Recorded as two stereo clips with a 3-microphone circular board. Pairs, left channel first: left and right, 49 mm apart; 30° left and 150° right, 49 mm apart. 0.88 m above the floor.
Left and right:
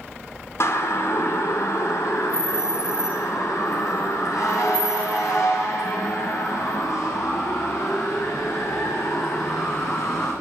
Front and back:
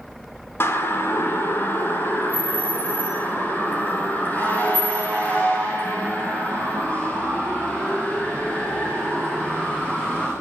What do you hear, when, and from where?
0.6 s a siren: 65° left, 4 m; by 10.3 s 95° left, 11 m